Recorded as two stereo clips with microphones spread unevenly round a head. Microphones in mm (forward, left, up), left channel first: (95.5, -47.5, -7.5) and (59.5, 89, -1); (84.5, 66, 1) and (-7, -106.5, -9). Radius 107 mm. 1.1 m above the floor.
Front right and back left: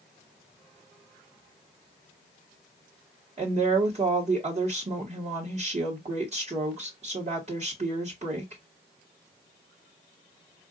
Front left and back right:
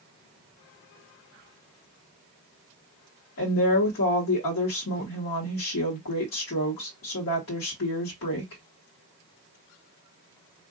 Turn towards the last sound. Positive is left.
turn(degrees=60)